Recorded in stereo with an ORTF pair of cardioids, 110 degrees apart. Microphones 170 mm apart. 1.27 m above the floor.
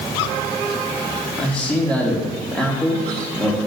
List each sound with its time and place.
1.4 s a man speaking: 5° left, 3 m